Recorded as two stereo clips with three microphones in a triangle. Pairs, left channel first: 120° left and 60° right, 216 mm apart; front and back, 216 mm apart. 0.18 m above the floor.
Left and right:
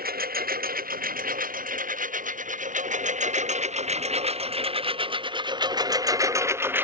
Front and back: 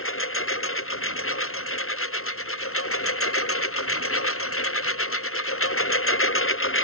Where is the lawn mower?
15° right; by 6.8 s 20° left.